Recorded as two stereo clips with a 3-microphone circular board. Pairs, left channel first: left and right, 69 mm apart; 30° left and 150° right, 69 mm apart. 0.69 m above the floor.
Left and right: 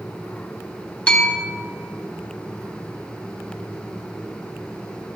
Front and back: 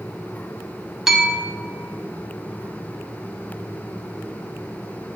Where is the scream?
I don't hear a scream.